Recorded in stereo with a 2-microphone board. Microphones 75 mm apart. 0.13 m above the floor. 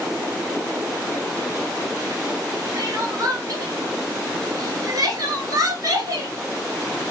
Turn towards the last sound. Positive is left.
turn(degrees=-50)  # may be behind; listen again after turning